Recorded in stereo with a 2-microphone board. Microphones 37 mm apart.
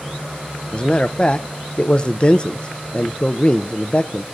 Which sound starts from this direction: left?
A man speaking, at 0.7 s.